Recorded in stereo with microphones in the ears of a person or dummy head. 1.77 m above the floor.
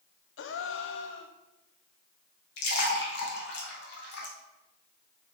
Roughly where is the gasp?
Left.